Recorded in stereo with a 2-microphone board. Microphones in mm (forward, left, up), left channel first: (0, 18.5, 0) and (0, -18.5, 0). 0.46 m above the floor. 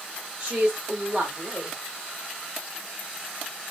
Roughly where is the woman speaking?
Right.